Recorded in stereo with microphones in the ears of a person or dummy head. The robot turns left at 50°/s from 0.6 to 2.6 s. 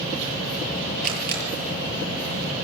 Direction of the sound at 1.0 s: 45° right (ahead or behind).